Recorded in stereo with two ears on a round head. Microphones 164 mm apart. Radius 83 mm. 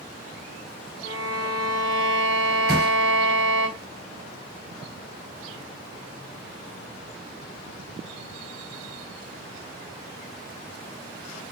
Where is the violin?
75° right (ahead or behind), 1.0 m.